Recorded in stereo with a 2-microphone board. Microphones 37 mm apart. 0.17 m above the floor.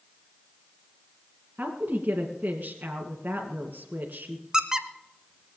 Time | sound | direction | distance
1.6 | a woman speaking | 40° right (ahead or behind) | 2 m
4.5 | a squeak | 20° right (ahead or behind) | 0.9 m